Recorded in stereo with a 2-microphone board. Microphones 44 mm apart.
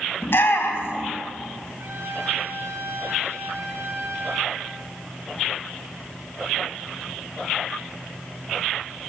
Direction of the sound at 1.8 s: 70° right (ahead or behind).